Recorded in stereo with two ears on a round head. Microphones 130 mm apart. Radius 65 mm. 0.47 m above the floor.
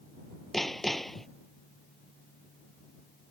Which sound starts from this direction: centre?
Hammering, at 0.5 s.